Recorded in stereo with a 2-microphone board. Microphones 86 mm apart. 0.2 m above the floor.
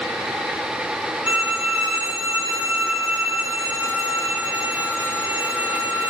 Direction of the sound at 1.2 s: 15° right (ahead or behind).